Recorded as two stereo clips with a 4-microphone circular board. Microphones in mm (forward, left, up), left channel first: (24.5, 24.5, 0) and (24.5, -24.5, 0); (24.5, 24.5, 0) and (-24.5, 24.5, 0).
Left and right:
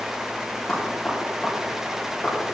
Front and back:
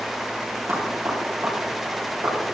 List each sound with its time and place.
0.7 s knocking: 160° left, 7 m